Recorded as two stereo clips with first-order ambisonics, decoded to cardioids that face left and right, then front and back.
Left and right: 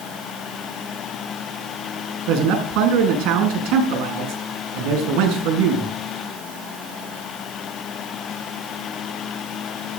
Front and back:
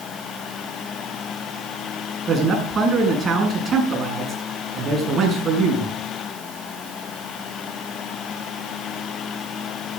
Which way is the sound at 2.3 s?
110° right.